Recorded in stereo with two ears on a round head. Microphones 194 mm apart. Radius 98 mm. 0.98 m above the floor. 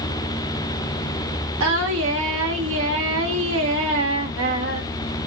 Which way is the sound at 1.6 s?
60° right (ahead or behind).